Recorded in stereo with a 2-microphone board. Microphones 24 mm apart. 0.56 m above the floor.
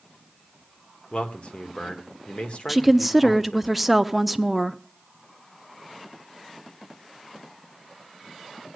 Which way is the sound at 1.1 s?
55° left (ahead or behind).